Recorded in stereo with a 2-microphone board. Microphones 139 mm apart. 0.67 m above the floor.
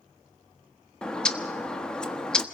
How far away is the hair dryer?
No hair dryer in this recording.